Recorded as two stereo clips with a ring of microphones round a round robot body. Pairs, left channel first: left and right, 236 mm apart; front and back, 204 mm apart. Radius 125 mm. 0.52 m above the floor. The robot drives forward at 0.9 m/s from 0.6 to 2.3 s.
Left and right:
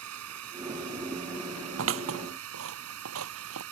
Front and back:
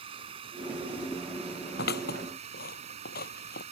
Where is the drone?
110° right; by 3.7 s 115° right.